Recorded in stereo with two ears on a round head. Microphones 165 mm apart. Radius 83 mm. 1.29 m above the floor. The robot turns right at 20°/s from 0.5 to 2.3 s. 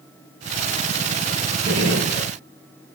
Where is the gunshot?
55° right (ahead or behind), 1.9 m; by 2.3 s 50° right (ahead or behind), 1.9 m.